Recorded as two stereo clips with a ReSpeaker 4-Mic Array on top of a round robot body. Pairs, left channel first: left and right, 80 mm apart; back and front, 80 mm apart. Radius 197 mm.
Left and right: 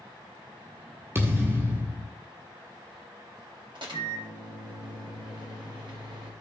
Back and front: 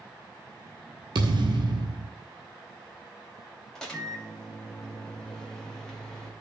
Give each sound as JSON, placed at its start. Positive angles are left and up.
{"t": 1.1, "sound": "a thud", "azimuth_deg": -30, "distance_m": 1.5}
{"t": 3.8, "sound": "a microwave", "azimuth_deg": -100, "distance_m": 3.0}